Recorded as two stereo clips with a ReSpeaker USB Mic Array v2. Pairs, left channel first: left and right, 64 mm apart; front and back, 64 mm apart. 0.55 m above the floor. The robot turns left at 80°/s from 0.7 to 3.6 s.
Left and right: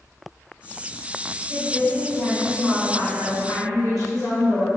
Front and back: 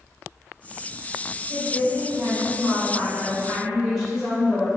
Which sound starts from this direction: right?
A woman speaking, at 1.5 s.